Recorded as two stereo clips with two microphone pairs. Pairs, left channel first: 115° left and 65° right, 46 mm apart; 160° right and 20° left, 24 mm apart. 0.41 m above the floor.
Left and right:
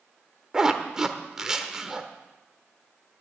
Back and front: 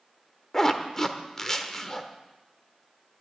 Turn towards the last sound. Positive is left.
turn(degrees=-120)